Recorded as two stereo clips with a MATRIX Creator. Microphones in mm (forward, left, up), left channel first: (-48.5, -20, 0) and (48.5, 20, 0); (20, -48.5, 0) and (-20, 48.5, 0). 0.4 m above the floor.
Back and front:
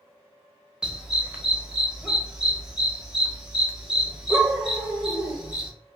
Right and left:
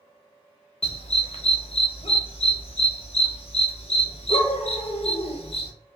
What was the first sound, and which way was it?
A dog barking, 60° right.